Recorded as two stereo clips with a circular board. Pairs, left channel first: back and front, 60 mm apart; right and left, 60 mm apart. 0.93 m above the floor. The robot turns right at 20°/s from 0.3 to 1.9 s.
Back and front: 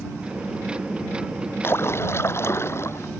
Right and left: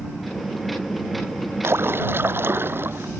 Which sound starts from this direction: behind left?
A splash, at 1.6 s.